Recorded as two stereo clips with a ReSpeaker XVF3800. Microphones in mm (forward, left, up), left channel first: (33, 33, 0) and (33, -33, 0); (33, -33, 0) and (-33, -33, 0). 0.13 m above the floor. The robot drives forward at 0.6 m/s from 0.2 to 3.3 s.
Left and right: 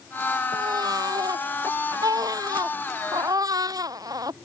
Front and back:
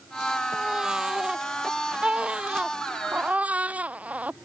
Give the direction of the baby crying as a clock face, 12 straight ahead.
3 o'clock.